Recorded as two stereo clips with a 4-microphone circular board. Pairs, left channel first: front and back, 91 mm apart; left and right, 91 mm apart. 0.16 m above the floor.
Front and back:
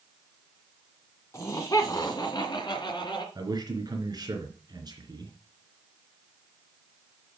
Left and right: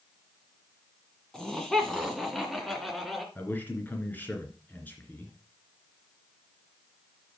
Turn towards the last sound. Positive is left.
turn(degrees=155)